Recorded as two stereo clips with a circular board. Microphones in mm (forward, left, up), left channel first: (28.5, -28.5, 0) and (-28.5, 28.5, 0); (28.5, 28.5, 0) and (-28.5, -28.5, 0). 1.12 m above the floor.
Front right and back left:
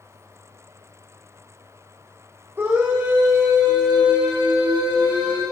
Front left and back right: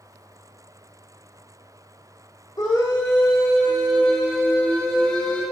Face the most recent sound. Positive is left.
turn(degrees=120)